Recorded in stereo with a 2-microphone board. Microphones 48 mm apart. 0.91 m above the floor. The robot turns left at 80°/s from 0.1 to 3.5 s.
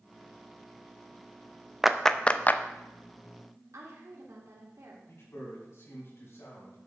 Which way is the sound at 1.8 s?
10° right (ahead or behind).